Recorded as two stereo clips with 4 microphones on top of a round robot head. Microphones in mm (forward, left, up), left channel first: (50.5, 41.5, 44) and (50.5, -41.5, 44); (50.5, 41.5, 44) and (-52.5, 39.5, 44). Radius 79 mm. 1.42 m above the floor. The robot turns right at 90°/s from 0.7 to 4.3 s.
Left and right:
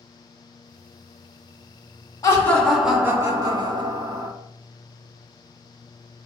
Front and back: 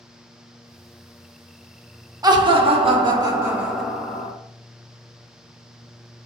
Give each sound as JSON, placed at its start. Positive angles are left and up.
{"t": 2.2, "sound": "laughter", "azimuth_deg": 135, "distance_m": 0.5}